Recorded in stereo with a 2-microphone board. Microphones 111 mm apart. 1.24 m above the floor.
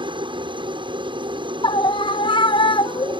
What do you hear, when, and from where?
0.0 s a helicopter: 45° right (ahead or behind)
1.6 s a scream: 50° left (ahead or behind)